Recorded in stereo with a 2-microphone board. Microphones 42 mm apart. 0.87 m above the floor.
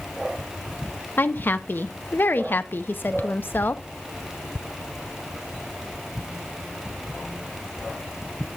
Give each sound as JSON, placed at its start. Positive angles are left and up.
{"t": 1.2, "sound": "a woman speaking", "side_deg": 55, "distance_m": 0.7}